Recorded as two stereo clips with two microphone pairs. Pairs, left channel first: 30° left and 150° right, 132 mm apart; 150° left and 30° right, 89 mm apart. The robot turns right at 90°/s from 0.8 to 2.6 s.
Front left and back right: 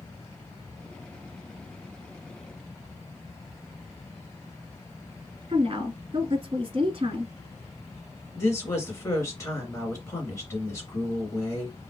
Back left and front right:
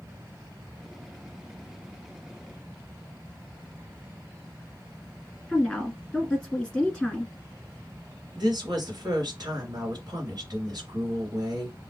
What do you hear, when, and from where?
5.5 s a woman speaking: 130° right, 1.3 m
8.3 s a woman speaking: 30° right, 2.5 m